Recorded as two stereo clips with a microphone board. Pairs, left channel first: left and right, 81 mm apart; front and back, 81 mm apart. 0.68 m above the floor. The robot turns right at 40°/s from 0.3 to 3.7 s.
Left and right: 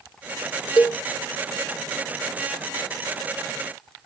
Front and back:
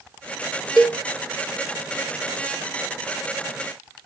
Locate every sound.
0.8 s a cowbell: 90° left, 2.0 m; by 1.0 s 100° left, 2.0 m